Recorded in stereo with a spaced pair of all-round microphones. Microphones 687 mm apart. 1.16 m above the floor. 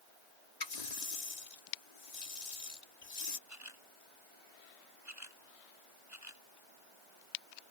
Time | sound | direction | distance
0.6 | a running tap | 75° left (ahead or behind) | ?
3.5 | a camera shutter | 25° right (ahead or behind) | ?